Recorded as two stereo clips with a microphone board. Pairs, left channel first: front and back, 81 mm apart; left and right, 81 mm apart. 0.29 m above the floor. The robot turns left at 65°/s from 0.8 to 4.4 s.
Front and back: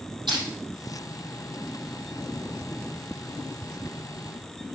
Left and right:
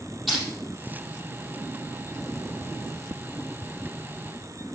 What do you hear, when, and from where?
0.3 s crushing: straight behind, 5.5 m